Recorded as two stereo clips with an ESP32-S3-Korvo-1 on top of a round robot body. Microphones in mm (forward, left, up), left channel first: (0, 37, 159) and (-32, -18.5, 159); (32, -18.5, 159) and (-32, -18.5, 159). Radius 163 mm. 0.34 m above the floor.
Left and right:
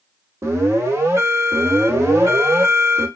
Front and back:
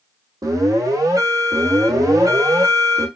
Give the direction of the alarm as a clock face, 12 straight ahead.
6 o'clock.